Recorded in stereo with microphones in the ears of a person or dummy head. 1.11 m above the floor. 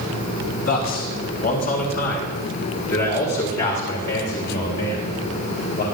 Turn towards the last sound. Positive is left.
turn(degrees=50)  # may be behind; listen again after turning